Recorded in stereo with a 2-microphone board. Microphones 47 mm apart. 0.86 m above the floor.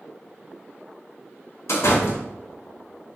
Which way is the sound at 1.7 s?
75° left (ahead or behind).